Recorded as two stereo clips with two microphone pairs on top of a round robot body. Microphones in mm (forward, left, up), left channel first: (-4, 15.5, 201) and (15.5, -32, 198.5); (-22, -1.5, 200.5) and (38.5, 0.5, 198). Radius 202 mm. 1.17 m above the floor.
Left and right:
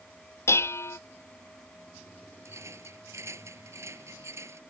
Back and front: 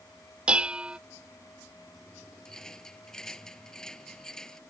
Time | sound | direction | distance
0.5 | dishes clattering | 75° left | ?
2.5 | a rattle | 95° right | ?